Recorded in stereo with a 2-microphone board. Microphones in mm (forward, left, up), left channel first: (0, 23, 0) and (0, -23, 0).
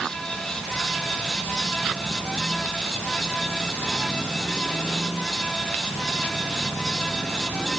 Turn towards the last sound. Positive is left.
No sound to turn to.